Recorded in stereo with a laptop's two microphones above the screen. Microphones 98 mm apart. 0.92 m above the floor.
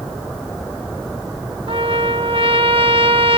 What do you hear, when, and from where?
1.7 s a trumpet: 60° right (ahead or behind)